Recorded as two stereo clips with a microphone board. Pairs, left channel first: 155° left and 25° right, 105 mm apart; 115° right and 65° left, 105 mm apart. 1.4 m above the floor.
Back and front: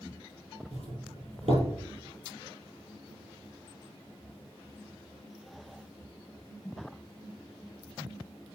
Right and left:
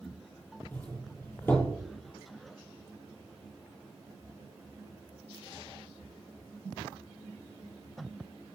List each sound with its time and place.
0.7 s a doorbell: 40° right, 6 m